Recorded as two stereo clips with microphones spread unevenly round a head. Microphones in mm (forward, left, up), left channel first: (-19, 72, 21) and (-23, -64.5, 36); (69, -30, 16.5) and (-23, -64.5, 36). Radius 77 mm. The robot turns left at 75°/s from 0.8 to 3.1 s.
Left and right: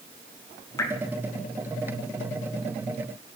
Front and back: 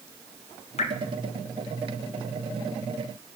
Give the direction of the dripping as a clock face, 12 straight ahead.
11 o'clock.